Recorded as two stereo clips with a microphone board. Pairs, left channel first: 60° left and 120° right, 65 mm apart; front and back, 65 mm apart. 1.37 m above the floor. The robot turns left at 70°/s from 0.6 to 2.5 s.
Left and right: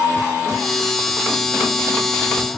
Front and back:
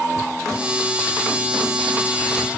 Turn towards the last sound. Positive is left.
No sound to turn to.